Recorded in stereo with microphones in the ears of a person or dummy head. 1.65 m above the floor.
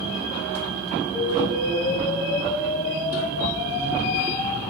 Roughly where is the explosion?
Centre.